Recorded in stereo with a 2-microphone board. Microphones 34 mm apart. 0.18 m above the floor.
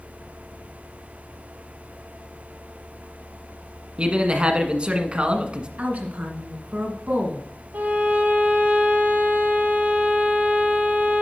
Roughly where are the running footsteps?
I don't hear running footsteps.